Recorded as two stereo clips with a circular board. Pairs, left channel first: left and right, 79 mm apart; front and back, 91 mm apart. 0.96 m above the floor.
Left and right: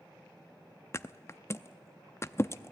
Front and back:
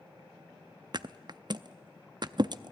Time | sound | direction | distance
0.9 | a thud | 145° left | 0.5 m